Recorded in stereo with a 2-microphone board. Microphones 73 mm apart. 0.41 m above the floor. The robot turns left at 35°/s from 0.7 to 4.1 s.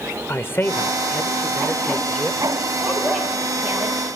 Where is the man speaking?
50° left, 1.0 m; by 2.4 s 10° right, 1.0 m.